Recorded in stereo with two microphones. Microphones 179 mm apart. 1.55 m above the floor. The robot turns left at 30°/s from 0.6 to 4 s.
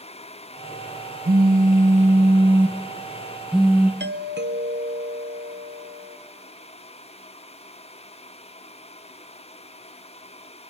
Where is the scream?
I don't hear a scream.